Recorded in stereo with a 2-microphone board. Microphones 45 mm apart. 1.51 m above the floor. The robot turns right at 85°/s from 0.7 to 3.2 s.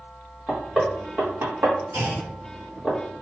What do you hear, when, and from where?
0.5 s knocking: 5° right (ahead or behind), 1.4 m; by 2.9 s 10° left (ahead or behind), 1.4 m
1.9 s a clunk: 85° right, 2 m; by 2.3 s 55° right, 2 m